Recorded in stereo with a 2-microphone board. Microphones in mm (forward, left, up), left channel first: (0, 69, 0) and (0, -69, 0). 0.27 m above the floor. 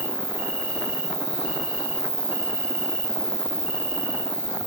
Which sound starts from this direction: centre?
An insect, at 0.0 s.